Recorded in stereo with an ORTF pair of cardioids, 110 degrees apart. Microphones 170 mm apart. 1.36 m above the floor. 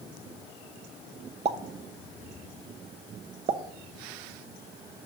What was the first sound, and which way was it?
A pop, 40° right.